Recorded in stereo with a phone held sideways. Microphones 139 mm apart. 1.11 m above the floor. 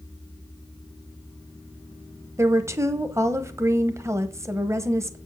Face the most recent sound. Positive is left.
turn(degrees=-20)  # may be behind; listen again after turning